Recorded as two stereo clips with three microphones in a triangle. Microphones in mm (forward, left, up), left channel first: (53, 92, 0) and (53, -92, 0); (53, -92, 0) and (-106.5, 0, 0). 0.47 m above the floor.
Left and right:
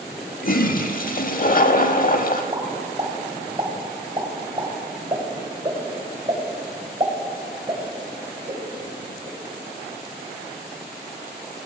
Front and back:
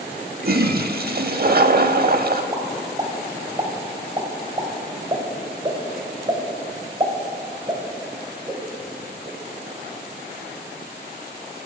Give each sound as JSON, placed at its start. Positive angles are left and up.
{"t": 0.4, "sound": "a toilet flushing", "azimuth_deg": 125, "distance_m": 0.6}
{"t": 2.5, "sound": "a pop", "azimuth_deg": -150, "distance_m": 2.5}